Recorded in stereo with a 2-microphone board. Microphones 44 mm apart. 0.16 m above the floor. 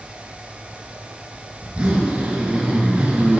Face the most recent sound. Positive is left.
turn(degrees=-25)  # may be behind; listen again after turning